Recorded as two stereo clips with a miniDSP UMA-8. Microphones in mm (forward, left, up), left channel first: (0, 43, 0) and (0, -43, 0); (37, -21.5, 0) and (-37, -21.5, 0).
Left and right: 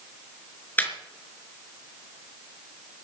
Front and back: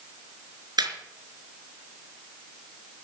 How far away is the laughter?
About 4.5 m.